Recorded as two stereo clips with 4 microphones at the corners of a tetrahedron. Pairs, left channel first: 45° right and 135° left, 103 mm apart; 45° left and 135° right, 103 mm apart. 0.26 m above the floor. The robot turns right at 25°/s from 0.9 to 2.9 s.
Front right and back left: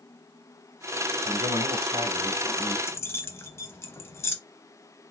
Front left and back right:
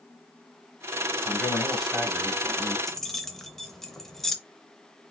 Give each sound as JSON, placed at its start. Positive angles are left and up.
{"t": 1.2, "sound": "a man speaking", "azimuth_deg": 125, "distance_m": 1.3}
{"t": 2.9, "sound": "keys jangling", "azimuth_deg": -40, "distance_m": 0.6}